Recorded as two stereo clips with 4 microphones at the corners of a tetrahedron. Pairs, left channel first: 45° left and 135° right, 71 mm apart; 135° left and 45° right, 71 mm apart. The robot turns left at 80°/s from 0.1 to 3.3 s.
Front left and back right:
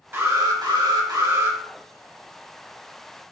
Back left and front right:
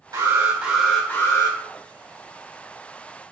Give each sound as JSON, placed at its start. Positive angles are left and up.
{"t": 0.1, "sound": "an alarm", "azimuth_deg": -75, "distance_m": 2.5}